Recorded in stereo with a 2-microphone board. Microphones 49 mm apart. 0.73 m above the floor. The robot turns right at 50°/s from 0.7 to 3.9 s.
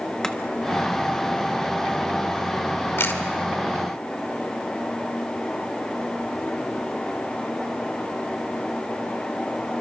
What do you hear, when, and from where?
0.2 s chopping: 10° left (ahead or behind), 1.3 m
3.0 s a camera shutter: 50° left (ahead or behind), 2 m; by 3.2 s 40° left (ahead or behind), 2 m